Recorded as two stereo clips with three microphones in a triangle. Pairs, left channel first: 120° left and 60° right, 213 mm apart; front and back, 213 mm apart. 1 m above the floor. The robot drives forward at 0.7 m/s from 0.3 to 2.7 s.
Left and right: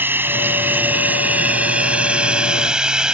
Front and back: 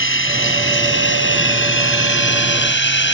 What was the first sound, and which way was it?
Running water, 20° left.